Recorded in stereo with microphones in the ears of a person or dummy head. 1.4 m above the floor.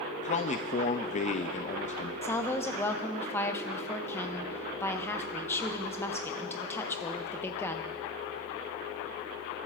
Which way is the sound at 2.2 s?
15° left (ahead or behind).